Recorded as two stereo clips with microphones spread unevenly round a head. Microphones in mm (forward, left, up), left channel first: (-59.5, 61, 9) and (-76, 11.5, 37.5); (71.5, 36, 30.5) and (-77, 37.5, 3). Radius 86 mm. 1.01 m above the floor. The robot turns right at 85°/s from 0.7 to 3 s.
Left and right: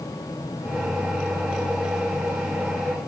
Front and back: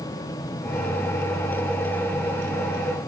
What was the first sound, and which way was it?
Only background noise.